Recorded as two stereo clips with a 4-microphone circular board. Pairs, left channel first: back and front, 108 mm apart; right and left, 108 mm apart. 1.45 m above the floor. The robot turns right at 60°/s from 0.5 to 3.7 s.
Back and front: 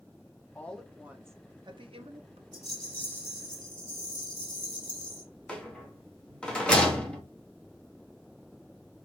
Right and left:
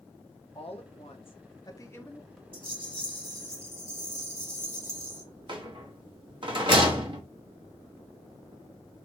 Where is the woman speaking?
110° right, 0.9 m; by 2.4 s 5° left, 0.9 m.